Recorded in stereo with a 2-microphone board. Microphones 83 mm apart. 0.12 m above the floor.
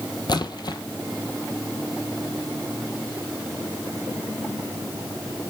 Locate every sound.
0.3 s a splash: 55° left (ahead or behind), 0.7 m